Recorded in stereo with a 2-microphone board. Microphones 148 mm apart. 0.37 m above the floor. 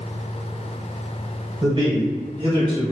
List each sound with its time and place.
1.6 s a man speaking: 30° right (ahead or behind), 1.3 m; by 2.9 s 35° right (ahead or behind), 1.0 m